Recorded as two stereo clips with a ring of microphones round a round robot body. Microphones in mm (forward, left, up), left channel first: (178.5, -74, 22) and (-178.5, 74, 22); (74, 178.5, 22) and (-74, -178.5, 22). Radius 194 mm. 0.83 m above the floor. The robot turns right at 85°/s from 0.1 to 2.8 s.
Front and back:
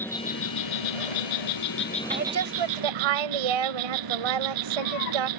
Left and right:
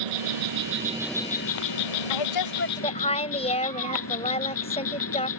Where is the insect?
105° right; by 5.4 s 120° left.